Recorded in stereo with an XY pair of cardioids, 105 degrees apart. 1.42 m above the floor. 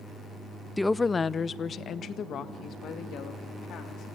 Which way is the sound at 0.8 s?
5° left.